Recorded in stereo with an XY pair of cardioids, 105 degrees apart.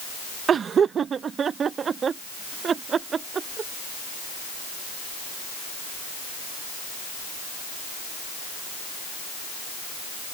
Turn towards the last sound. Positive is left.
turn(degrees=-45)